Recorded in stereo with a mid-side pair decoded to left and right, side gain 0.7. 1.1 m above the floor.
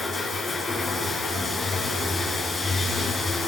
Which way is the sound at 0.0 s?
20° left.